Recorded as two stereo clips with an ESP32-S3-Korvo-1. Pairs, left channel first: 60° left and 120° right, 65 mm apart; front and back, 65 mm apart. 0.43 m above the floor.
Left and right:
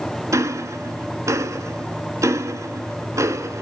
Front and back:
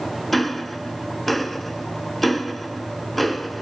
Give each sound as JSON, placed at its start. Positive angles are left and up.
{"t": 0.3, "sound": "ticking", "azimuth_deg": -90, "distance_m": 0.9}